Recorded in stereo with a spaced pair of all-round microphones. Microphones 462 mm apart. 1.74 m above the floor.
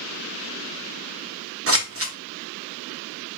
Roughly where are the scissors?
Right.